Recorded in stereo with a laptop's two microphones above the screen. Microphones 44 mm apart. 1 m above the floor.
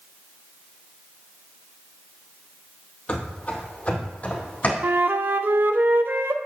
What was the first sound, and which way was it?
Running footsteps, 30° left (ahead or behind).